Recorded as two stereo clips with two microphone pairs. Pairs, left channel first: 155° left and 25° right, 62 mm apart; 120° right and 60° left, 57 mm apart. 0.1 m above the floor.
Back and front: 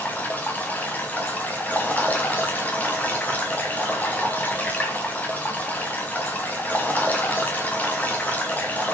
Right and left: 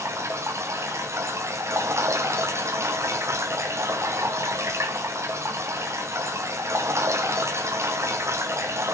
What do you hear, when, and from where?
0.0 s running water: 95° left, 3.5 m